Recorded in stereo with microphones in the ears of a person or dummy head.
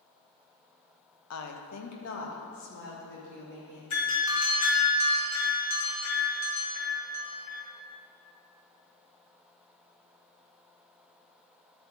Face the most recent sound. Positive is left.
turn(degrees=75)  # may be behind; listen again after turning